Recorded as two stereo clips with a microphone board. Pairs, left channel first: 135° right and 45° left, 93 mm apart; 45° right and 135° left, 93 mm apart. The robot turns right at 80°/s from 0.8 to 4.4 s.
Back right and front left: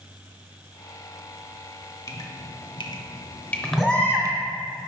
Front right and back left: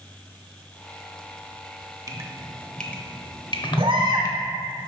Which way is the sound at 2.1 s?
Straight behind.